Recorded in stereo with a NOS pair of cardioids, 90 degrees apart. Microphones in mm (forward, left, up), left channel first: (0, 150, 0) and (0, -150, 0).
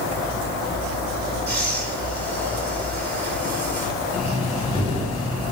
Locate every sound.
1.5 s breathing: 35° right, 3.5 m
4.1 s breathing: 20° left, 2 m